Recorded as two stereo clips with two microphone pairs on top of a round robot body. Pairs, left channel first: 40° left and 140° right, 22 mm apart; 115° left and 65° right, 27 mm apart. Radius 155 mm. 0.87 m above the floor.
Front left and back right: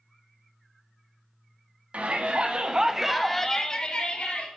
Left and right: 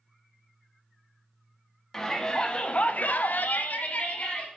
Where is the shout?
165° right, 1.9 m; by 4.5 s 75° left, 2 m.